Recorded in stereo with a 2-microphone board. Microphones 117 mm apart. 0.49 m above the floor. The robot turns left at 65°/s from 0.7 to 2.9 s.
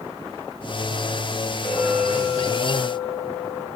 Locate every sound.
1.6 s a clink: 35° right, 4 m; by 3.7 s 120° right, 4 m